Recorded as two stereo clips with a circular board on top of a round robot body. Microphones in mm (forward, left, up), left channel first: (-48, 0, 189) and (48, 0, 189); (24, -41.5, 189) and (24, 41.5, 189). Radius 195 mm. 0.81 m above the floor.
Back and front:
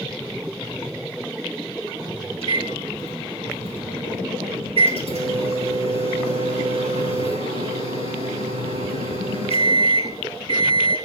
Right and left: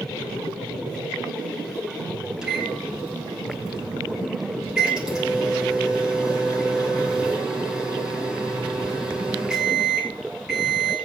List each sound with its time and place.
2.4 s a microwave: 5° left, 5.5 m